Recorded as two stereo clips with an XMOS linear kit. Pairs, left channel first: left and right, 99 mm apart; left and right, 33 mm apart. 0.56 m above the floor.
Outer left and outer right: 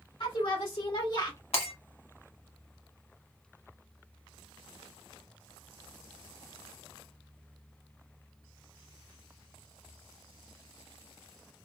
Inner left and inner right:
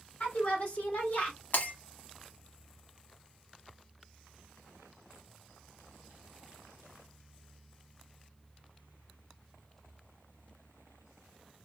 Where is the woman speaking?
60° left (ahead or behind), 1.8 m; by 1.4 s 50° left (ahead or behind), 1.3 m.